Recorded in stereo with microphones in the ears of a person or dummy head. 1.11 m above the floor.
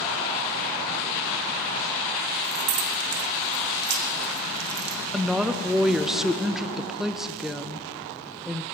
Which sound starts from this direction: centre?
A woman speaking, at 5.1 s.